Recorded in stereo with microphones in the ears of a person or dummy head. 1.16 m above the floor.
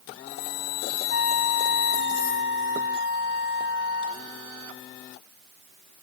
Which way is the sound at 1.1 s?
75° left (ahead or behind).